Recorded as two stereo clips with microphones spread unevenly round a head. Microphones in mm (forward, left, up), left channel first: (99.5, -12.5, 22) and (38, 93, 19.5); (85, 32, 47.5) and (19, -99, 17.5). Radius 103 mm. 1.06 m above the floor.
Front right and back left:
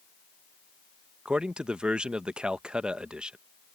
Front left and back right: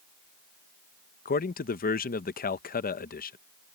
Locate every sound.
1.2 s a man speaking: 40° left